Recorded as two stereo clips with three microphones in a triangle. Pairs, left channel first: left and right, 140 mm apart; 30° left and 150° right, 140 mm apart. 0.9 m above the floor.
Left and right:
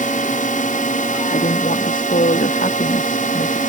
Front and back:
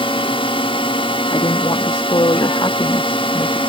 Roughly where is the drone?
Left.